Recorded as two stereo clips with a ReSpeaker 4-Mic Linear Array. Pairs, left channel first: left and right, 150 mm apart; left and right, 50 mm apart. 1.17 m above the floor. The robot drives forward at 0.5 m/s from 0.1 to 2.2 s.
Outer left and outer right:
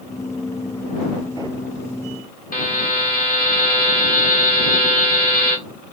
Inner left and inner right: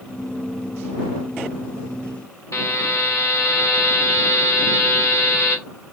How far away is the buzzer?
About 1.0 m.